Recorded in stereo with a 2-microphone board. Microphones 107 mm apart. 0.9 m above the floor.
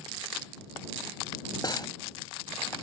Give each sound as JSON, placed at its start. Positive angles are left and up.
{"t": 1.6, "sound": "cutlery clinking", "side_deg": 40}